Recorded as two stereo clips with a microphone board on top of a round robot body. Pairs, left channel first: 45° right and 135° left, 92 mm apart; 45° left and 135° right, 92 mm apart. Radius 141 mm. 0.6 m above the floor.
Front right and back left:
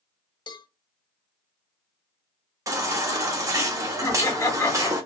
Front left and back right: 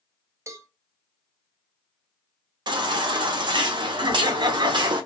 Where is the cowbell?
80° right, 0.6 m.